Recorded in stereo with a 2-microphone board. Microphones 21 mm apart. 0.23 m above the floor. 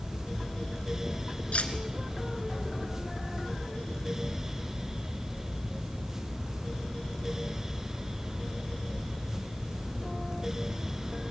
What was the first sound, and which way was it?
Cutlery clinking, 65° left (ahead or behind).